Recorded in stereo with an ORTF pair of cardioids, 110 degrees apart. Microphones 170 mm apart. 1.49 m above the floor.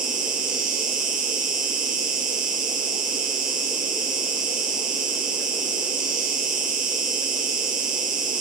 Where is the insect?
55° right, 1.2 m.